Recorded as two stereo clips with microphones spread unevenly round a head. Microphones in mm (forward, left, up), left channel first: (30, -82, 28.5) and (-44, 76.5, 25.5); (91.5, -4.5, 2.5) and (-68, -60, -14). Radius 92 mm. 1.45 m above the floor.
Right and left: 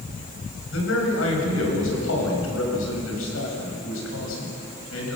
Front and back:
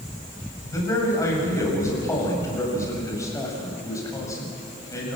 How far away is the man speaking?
About 7.5 m.